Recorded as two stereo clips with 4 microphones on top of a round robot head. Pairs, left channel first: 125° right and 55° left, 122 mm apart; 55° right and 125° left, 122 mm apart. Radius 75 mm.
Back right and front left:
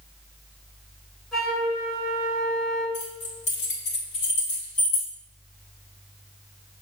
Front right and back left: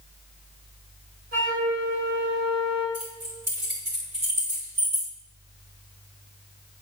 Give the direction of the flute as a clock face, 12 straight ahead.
7 o'clock.